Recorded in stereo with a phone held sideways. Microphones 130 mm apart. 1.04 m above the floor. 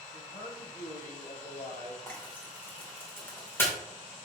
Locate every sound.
0.1 s a man speaking: 80° left, 3.5 m
2.1 s frying: 15° left (ahead or behind), 3 m